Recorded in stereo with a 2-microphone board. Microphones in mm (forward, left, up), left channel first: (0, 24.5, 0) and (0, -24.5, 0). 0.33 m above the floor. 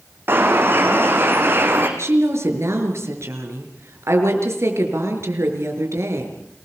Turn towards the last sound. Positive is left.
turn(degrees=-65)  # may be behind; listen again after turning